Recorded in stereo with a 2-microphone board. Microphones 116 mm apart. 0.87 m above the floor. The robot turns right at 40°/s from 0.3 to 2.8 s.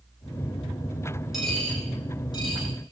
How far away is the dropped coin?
About 7.5 m.